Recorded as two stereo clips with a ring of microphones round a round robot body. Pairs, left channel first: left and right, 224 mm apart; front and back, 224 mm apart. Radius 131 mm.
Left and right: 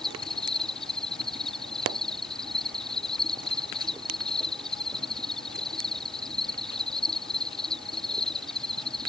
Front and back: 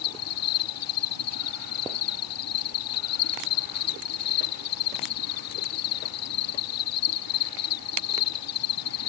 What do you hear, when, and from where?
0.0 s an insect: straight ahead